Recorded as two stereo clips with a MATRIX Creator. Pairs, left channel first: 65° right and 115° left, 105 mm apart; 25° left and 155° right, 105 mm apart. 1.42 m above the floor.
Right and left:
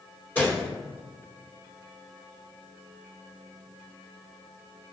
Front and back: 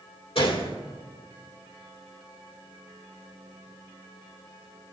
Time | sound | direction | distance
0.3 | a gunshot | 5° left | 2.5 m